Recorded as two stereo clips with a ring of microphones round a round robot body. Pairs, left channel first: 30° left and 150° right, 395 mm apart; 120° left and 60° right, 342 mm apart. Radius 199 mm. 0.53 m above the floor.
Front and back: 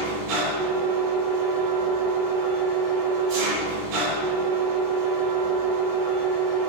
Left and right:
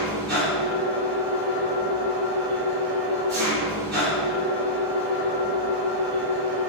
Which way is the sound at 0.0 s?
130° right.